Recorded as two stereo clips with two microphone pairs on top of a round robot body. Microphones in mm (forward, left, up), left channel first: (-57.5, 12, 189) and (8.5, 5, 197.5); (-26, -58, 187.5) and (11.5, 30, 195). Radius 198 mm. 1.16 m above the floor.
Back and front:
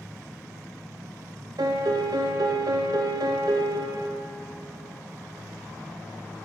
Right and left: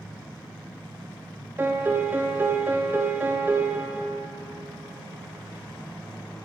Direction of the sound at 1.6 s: 5° right.